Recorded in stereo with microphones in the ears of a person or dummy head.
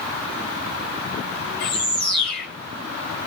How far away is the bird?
About 1.8 m.